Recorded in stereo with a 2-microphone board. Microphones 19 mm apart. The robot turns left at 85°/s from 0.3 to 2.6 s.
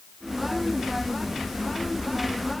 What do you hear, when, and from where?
Only background noise.